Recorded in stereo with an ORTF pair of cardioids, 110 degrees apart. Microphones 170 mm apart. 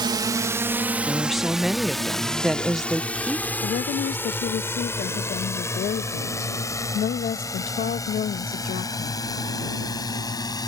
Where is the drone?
25° right; by 10.7 s 20° left.